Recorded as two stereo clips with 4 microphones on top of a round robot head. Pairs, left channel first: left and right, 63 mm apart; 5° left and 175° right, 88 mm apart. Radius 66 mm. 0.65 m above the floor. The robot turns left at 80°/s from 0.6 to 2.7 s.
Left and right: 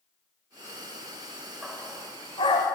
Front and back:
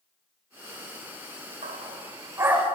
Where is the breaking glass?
No breaking glass in this recording.